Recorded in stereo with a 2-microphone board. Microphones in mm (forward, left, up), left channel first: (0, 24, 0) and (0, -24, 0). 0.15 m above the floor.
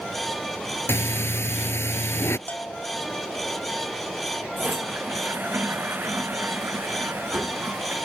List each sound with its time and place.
0.9 s breathing: 60° left (ahead or behind)
2.5 s a bell: 30° left (ahead or behind)
4.6 s a toilet flushing: 45° right (ahead or behind)